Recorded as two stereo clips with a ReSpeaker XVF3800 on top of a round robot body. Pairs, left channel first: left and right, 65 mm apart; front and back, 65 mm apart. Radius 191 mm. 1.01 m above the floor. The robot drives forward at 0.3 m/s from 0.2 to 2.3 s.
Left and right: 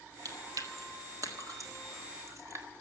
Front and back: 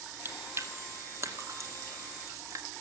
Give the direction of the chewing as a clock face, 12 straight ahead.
4 o'clock.